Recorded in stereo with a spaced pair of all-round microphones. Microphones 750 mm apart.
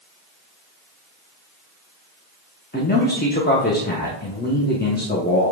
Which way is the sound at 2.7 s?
15° left (ahead or behind).